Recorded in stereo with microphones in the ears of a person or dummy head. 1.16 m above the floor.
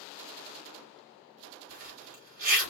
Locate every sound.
1.7 s a zipper: 45° right (ahead or behind), 3.5 m